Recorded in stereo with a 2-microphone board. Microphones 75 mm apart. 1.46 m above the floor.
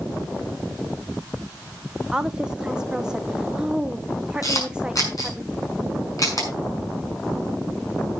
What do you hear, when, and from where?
2.1 s a woman speaking: 10° right (ahead or behind), 0.7 m
4.4 s a camera shutter: 50° left (ahead or behind), 6 m